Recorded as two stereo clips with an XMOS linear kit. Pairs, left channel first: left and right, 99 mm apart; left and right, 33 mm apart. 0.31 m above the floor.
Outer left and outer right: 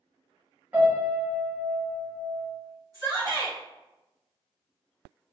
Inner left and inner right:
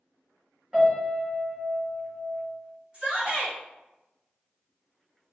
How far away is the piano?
About 1.9 m.